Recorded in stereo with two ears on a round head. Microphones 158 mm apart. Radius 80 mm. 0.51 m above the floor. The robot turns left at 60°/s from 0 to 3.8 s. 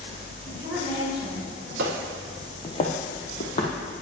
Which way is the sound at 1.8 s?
60° right (ahead or behind).